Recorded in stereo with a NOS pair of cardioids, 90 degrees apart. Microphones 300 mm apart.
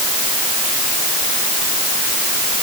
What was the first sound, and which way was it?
Only background noise.